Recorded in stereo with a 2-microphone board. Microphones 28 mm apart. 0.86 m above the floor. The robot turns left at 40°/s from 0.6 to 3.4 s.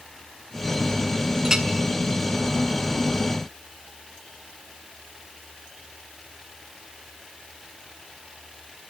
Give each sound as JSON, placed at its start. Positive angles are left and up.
{"t": 1.4, "sound": "a clink", "side_deg": -15, "distance_m": 1.9}